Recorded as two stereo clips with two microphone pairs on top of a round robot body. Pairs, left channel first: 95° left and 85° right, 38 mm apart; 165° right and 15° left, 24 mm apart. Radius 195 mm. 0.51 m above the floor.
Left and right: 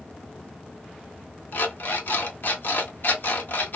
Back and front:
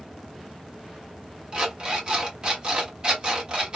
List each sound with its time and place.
1.5 s an alarm clock: 65° left, 1.0 m